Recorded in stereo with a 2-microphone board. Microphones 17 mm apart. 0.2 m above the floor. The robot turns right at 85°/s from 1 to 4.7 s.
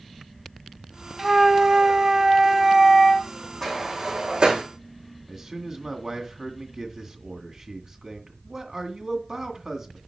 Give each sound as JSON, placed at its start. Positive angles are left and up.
{"t": 1.2, "sound": "a flute", "azimuth_deg": -145, "distance_m": 0.6}
{"t": 3.6, "sound": "a sliding door", "side_deg": 15, "distance_m": 3.5}
{"t": 5.3, "sound": "a man speaking", "side_deg": -40, "distance_m": 2.0}